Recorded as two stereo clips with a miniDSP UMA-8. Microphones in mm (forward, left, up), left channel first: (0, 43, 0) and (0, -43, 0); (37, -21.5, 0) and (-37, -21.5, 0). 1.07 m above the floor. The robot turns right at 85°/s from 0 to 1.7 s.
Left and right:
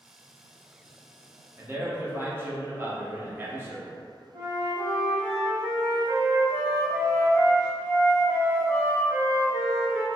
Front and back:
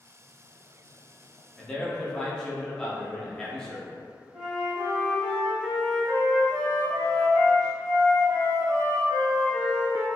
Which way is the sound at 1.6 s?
80° right.